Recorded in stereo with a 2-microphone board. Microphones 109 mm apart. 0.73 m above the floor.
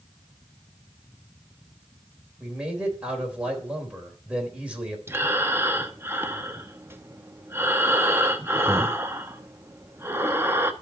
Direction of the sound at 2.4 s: 10° right (ahead or behind).